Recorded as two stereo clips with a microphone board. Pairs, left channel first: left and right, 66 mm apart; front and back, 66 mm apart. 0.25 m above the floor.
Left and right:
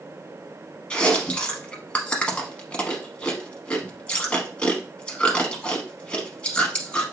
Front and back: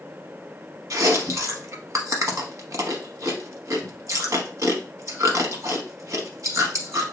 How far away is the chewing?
About 0.8 m.